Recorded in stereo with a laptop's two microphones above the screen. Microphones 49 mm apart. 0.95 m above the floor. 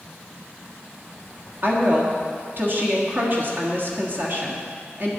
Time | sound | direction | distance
1.6 | a woman speaking | 50° right (ahead or behind) | 1.4 m